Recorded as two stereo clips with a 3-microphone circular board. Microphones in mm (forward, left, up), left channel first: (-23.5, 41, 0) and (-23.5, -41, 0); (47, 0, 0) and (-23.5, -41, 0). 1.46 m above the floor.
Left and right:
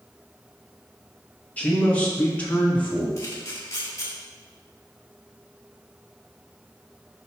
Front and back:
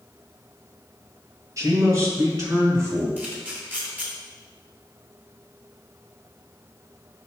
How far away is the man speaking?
About 1.9 m.